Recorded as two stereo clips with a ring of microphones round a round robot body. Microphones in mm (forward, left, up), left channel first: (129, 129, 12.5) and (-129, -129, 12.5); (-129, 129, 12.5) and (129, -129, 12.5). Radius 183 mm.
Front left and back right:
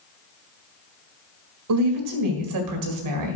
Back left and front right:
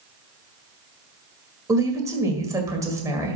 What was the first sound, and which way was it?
A woman speaking, 125° right.